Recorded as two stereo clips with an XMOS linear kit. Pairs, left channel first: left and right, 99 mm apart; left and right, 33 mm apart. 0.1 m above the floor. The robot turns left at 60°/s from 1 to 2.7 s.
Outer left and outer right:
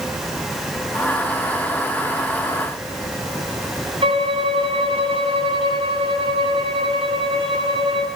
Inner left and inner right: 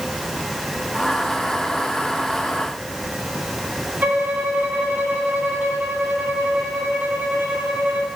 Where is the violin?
65° right (ahead or behind), 4 m.